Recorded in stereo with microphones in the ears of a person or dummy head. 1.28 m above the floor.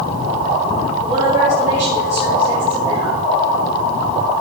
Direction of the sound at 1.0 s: 20° right (ahead or behind).